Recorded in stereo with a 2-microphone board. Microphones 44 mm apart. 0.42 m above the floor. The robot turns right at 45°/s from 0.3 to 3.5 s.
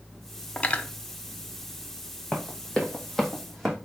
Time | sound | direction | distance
0.6 | cutlery clinking | 30° left (ahead or behind) | 0.5 m
2.3 | running footsteps | 15° left (ahead or behind) | 1.4 m